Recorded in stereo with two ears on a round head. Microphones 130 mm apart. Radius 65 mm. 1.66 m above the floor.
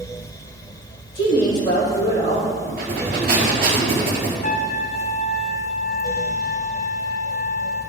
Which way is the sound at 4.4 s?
50° left (ahead or behind).